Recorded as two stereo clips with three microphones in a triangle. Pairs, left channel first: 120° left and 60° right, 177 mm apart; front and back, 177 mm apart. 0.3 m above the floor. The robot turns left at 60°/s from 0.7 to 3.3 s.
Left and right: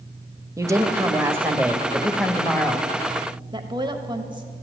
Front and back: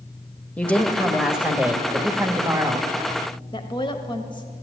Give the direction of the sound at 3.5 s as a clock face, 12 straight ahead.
1 o'clock.